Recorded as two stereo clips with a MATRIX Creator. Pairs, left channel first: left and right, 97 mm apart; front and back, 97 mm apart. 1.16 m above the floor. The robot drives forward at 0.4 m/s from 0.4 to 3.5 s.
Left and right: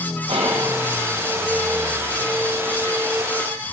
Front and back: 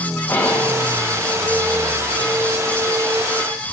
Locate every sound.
0.3 s whispering: 65° right, 0.9 m; by 0.8 s 75° right, 0.8 m